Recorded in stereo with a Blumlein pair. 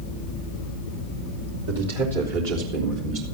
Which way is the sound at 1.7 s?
65° right.